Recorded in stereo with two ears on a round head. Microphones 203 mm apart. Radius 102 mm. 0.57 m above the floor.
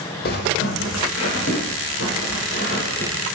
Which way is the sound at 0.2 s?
45° left (ahead or behind).